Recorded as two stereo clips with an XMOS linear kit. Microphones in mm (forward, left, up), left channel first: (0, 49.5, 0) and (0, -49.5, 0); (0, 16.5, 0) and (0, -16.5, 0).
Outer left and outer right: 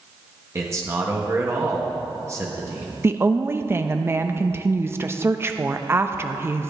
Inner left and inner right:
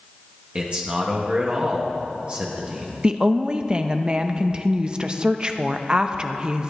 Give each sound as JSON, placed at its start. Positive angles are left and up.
{"t": 0.6, "sound": "a man speaking", "side_deg": -30, "distance_m": 1.3}
{"t": 3.0, "sound": "a woman speaking", "side_deg": -25, "distance_m": 0.5}